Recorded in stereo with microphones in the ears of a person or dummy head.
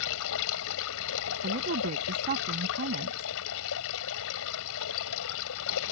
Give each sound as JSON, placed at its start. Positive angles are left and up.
{"t": 0.0, "sound": "running water", "side_deg": 75}
{"t": 1.4, "sound": "a woman speaking", "side_deg": -45}